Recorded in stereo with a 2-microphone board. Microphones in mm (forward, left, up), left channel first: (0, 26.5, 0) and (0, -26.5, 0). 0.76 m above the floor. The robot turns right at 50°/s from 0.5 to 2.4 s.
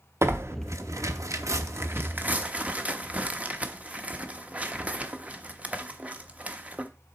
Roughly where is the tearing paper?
Right.